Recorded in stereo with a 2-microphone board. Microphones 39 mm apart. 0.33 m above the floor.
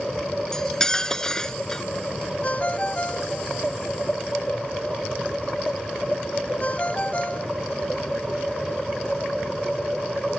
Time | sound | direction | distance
0.5 | cutlery clinking | 15° left (ahead or behind) | ?
2.4 | a ringtone | 35° left (ahead or behind) | ?